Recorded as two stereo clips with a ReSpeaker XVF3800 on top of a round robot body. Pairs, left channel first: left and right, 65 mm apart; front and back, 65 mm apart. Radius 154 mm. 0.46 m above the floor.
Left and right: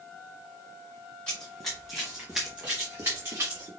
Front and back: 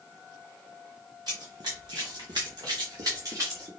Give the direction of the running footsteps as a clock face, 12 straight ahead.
7 o'clock.